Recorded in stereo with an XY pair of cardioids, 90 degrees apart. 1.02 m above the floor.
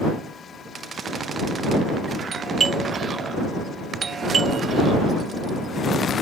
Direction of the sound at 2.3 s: 50° right.